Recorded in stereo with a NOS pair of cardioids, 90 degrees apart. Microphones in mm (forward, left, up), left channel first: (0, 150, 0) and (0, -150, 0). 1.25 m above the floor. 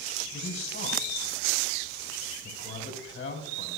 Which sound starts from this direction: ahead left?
A man speaking, at 0.3 s.